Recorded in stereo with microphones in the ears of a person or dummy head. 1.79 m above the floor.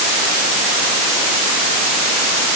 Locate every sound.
Only background noise.